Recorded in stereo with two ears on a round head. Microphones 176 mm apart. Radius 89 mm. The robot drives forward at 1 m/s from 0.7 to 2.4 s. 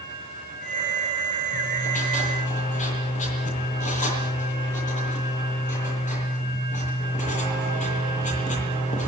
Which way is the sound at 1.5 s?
45° left (ahead or behind).